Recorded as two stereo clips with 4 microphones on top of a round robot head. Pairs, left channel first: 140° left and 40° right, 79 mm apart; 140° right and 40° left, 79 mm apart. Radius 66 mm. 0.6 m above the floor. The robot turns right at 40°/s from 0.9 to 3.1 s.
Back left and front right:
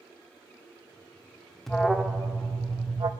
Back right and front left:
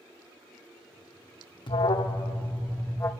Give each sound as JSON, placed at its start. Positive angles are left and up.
{"t": 1.7, "sound": "an alarm", "azimuth_deg": -135, "distance_m": 0.8}